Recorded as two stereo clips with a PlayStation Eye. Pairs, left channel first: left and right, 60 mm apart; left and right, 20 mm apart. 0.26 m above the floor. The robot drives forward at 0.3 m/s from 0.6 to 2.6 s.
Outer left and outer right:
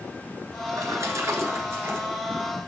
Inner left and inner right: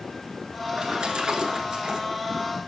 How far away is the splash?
About 1.0 m.